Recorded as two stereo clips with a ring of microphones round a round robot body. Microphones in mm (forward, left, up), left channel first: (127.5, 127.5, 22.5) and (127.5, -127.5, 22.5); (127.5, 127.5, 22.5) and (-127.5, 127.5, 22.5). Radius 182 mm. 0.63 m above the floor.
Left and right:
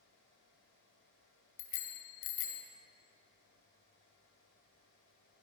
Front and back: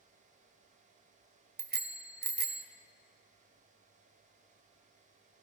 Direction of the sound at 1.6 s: 130° left.